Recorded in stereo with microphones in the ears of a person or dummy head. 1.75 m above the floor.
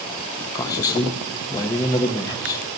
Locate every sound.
0.6 s a man speaking: 20° left (ahead or behind), 1.3 m